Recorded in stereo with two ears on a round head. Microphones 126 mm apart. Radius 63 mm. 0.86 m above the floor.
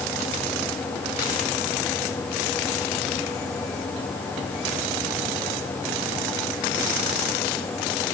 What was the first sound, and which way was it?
Only background noise.